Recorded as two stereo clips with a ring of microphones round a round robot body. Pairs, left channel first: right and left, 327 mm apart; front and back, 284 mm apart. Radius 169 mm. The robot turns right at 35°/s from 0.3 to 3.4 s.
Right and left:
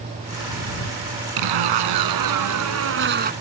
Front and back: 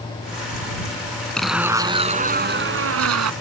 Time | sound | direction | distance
1.4 | a zipper | 85° left | ?